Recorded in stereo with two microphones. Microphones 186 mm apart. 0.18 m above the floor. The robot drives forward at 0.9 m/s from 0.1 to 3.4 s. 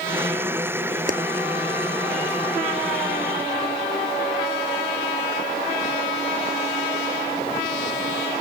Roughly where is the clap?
Right.